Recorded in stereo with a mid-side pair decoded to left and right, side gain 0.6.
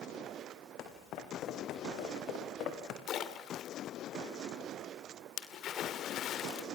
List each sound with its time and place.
0.8 s footsteps: 60° left, 4.5 m
3.1 s a splash: 55° left, 2.5 m